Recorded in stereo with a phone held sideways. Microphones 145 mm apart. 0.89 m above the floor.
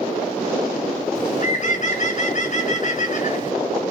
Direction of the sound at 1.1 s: 55° left (ahead or behind).